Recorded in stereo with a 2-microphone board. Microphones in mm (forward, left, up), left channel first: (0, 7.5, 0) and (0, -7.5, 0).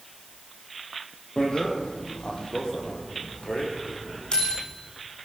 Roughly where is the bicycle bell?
Left.